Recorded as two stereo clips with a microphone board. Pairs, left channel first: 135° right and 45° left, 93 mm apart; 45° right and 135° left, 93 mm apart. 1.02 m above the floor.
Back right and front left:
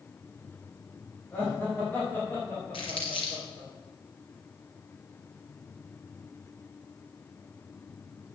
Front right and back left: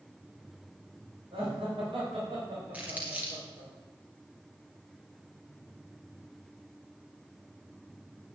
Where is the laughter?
155° left, 4.5 m; by 3.7 s 160° left, 3 m.